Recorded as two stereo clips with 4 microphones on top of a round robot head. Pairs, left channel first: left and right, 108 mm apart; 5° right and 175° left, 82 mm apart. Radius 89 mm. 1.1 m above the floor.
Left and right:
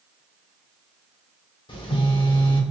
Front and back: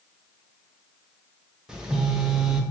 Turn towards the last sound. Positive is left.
turn(degrees=95)